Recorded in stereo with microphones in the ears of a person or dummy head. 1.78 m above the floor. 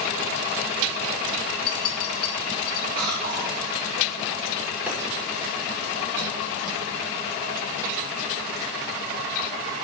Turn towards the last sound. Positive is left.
turn(degrees=-5)  # may be behind; listen again after turning